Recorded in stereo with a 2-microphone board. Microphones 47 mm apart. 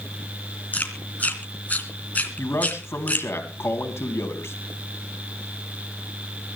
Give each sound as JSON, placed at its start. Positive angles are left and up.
{"t": 0.7, "sound": "chewing", "side_deg": 30, "distance_m": 2.5}
{"t": 2.4, "sound": "a man speaking", "side_deg": 60, "distance_m": 3.0}